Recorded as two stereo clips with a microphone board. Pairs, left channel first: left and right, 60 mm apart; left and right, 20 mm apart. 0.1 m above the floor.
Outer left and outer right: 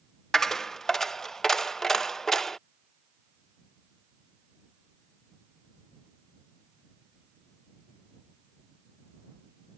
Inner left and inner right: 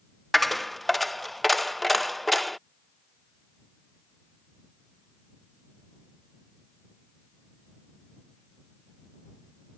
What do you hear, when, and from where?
0.3 s a dropped coin: 5° left (ahead or behind)